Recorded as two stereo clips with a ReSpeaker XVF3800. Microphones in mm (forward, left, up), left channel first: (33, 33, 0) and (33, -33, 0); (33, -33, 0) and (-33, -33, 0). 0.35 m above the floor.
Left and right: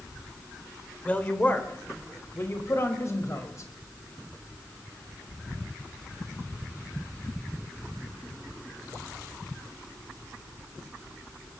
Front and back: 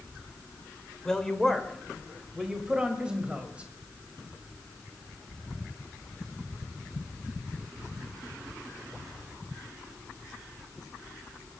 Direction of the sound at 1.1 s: 65° left.